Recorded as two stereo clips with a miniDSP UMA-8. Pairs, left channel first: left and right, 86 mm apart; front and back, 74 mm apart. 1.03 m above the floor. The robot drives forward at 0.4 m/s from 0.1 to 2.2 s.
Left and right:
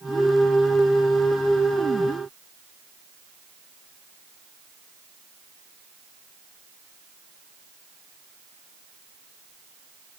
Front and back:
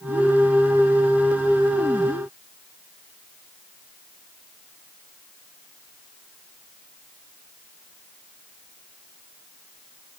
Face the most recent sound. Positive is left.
No sound to turn to.